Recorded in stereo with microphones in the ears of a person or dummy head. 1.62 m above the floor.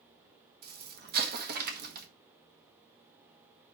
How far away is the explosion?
About 1.4 m.